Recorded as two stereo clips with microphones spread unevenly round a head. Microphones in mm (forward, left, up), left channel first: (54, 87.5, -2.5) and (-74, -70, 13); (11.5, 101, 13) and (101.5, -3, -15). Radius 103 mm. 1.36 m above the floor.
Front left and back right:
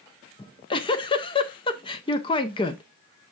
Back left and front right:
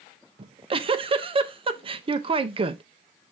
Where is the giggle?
10° right, 0.6 m.